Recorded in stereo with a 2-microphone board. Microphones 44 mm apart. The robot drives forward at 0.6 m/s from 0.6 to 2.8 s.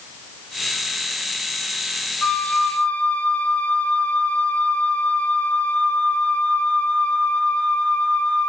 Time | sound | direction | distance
2.2 | a flute | 40° left (ahead or behind) | 0.6 m